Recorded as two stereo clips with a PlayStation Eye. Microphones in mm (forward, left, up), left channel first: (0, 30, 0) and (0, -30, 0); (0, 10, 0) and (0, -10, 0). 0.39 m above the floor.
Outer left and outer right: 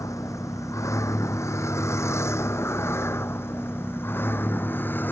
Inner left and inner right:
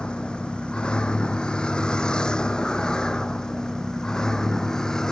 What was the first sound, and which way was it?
A vehicle, 65° left (ahead or behind).